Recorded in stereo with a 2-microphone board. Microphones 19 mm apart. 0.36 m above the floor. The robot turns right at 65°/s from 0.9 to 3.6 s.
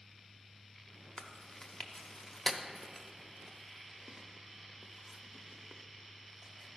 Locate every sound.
1.2 s chewing: 25° left (ahead or behind), 0.7 m; by 6.8 s 15° right (ahead or behind), 0.7 m